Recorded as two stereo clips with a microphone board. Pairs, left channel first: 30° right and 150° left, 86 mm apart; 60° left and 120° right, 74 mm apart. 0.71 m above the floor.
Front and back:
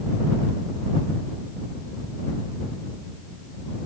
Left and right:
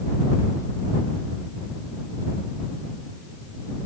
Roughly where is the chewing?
I don't hear chewing.